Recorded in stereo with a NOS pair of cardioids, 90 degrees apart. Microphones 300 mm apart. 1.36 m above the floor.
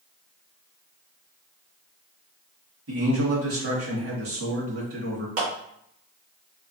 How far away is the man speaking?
About 1.9 m.